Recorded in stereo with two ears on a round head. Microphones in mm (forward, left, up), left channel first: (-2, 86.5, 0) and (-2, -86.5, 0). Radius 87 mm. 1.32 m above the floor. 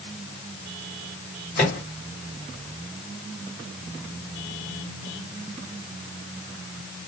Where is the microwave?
45° left (ahead or behind), 2.5 m.